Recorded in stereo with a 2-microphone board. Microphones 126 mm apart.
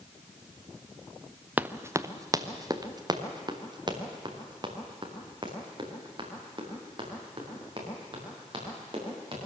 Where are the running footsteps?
10° right (ahead or behind), 0.7 m; by 9.4 s 40° right (ahead or behind), 8.5 m.